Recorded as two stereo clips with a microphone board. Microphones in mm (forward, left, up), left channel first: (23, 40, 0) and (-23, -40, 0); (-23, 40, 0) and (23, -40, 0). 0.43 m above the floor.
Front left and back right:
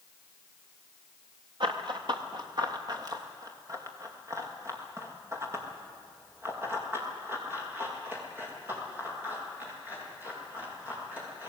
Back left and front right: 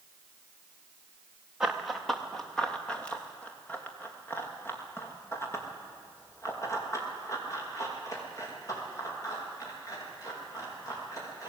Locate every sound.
1.6 s running footsteps: 145° right, 2 m; by 11.5 s 170° left, 8.5 m